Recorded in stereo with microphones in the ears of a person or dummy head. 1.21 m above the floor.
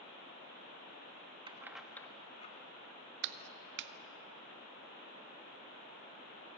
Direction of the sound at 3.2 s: 60° right (ahead or behind).